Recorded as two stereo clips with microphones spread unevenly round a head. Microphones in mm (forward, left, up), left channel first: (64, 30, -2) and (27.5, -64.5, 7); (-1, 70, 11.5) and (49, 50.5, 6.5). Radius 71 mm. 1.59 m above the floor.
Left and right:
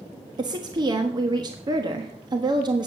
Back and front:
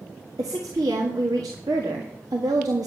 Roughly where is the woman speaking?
Ahead right.